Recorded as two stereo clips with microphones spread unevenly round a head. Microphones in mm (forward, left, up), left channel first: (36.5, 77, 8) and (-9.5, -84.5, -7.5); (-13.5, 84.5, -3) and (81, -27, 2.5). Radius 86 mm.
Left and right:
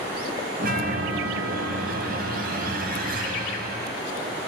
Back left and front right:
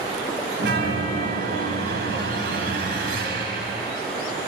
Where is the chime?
70° right, 4.5 m.